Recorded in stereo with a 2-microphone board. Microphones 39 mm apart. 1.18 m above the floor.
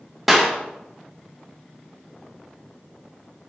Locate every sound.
0.3 s a clap: 5° right (ahead or behind), 1.2 m